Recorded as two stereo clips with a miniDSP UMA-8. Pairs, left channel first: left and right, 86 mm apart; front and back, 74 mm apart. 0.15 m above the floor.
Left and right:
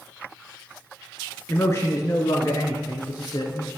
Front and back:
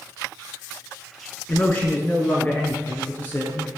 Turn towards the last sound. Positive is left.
turn(degrees=65)